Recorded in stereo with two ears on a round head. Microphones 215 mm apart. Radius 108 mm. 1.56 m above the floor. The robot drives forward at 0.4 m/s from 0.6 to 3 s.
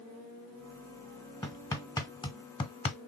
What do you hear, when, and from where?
1.4 s hammering: 15° left (ahead or behind), 1.2 m; by 3.0 s 25° left (ahead or behind), 0.6 m